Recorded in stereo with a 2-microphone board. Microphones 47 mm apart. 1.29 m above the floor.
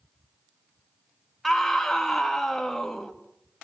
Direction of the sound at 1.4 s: 10° left (ahead or behind).